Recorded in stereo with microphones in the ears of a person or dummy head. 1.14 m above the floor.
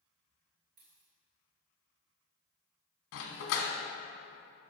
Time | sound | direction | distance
0.8 | a dropped coin | 35° right (ahead or behind) | 2.0 m
3.1 | a dog barking | 60° left (ahead or behind) | 1.4 m